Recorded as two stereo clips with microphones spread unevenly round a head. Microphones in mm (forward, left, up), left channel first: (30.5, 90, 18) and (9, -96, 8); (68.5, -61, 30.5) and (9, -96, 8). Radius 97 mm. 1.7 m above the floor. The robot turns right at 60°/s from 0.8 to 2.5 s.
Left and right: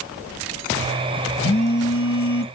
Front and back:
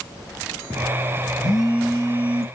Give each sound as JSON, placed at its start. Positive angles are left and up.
{"t": 1.4, "sound": "a phone buzzing", "azimuth_deg": 50, "distance_m": 0.9}